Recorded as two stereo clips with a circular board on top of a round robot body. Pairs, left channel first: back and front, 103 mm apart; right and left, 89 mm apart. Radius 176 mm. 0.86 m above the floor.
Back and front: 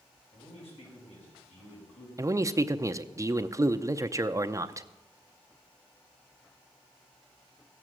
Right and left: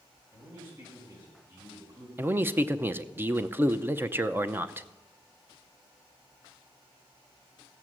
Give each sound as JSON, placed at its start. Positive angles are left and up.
{"t": 0.3, "sound": "a man speaking", "azimuth_deg": 155, "distance_m": 6.0}
{"t": 2.2, "sound": "a man speaking", "azimuth_deg": 40, "distance_m": 0.8}